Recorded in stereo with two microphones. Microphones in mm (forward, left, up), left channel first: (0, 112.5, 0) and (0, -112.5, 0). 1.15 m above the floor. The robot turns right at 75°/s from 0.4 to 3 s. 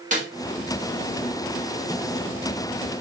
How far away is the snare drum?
About 2.5 m.